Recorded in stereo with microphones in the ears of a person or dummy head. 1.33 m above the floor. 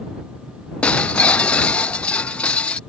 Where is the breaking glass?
10° left (ahead or behind).